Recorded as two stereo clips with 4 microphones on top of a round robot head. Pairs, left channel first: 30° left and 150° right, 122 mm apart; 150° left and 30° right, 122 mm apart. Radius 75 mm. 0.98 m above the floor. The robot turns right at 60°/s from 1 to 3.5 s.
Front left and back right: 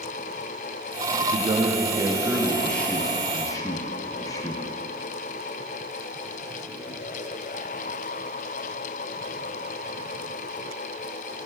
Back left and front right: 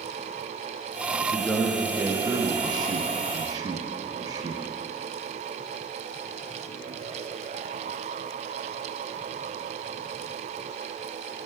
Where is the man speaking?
140° right, 0.5 m; by 4.6 s 5° right, 0.5 m.